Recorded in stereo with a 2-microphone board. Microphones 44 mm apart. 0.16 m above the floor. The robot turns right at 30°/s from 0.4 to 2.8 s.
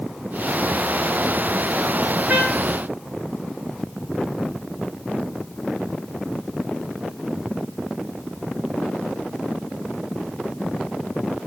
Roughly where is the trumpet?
Right.